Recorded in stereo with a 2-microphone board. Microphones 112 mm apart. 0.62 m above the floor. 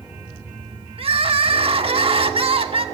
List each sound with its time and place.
1.0 s crying: 60° right (ahead or behind), 1.2 m